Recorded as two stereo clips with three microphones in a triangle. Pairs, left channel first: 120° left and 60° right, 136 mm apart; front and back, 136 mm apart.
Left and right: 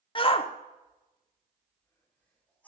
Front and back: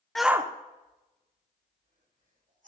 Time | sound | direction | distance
0.1 | a shout | 85° left | 0.9 m